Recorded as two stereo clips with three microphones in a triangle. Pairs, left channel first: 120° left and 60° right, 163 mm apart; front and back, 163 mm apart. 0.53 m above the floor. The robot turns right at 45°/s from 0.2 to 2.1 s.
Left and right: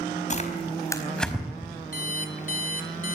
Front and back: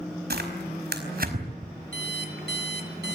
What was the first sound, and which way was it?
Tearing paper, 165° left.